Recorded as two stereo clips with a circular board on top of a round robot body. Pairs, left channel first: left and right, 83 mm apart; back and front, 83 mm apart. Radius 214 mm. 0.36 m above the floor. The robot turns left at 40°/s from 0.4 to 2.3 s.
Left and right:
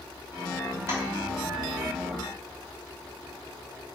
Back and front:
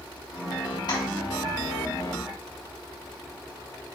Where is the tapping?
145° right, 3 m; by 1.0 s 150° right, 3 m.